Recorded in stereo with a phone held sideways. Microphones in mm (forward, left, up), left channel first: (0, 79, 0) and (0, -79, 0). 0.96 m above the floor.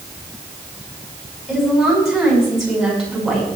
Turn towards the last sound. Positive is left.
turn(degrees=0)  # may be behind; listen again after turning